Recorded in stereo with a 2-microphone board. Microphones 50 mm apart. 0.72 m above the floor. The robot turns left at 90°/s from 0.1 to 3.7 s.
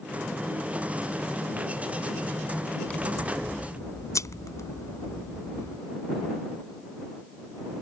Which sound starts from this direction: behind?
Scissors, at 2.9 s.